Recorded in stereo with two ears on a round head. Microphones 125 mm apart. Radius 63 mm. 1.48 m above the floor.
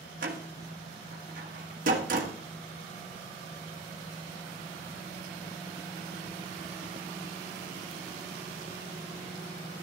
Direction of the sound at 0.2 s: 65° right (ahead or behind).